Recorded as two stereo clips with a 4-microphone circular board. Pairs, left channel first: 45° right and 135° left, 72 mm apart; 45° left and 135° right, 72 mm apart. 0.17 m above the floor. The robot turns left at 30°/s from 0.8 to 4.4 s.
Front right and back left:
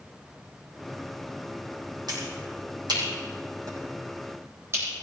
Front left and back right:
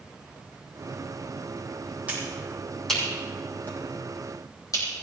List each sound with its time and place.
2.1 s a finger snap: 150° left, 7 m; by 4.9 s 85° left, 7 m